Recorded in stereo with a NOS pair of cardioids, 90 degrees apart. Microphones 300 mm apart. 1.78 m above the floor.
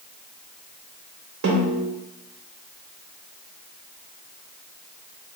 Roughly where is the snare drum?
Ahead right.